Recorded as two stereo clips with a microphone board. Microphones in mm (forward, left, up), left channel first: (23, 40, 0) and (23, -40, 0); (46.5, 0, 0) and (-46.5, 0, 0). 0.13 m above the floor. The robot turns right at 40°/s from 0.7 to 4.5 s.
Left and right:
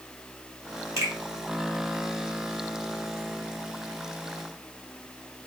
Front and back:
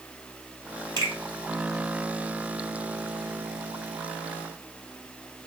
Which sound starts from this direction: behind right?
A finger snap, at 1.0 s.